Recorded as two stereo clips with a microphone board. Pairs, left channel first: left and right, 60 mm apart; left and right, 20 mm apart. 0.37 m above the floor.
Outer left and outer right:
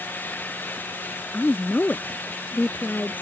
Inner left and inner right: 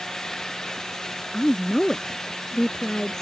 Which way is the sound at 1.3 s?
30° left (ahead or behind).